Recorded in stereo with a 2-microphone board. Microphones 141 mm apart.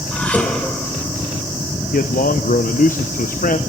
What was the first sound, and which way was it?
Dishes clattering, 10° left (ahead or behind).